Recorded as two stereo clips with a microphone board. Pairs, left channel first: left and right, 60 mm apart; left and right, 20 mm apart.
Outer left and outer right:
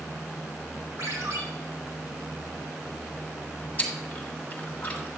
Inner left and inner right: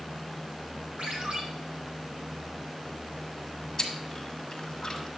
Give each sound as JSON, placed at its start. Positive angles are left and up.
{"t": 1.0, "sound": "a ringtone", "side_deg": -70, "distance_m": 3.0}
{"t": 3.8, "sound": "chewing", "side_deg": 25, "distance_m": 1.6}